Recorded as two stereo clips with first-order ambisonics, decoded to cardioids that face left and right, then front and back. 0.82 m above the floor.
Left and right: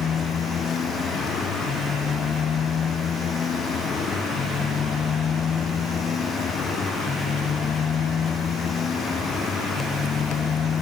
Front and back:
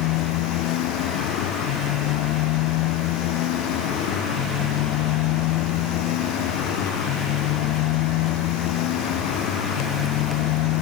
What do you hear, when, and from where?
0.0 s a motorcycle: 25° left